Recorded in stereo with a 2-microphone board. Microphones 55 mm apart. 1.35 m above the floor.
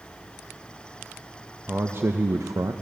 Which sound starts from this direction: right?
A man speaking, at 1.7 s.